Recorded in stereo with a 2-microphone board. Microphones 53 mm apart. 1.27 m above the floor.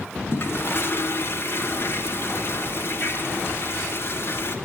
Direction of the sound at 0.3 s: 50° left (ahead or behind).